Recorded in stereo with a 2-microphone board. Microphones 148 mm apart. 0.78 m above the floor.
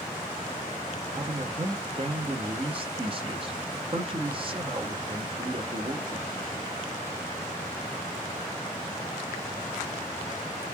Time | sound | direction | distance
1.1 | a man speaking | 40° right (ahead or behind) | 0.9 m